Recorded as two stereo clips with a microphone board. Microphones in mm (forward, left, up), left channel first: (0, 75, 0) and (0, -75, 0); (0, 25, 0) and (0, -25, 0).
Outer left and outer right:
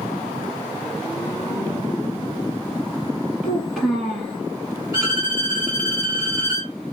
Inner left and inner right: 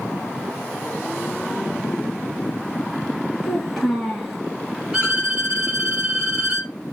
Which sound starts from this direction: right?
A violin, at 4.9 s.